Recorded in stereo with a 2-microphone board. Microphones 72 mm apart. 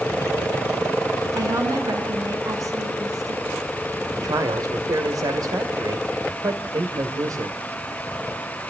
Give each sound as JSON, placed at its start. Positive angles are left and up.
{"t": 1.4, "sound": "a woman speaking", "side_deg": -50, "distance_m": 5.5}
{"t": 4.1, "sound": "a man speaking", "side_deg": -55, "distance_m": 1.9}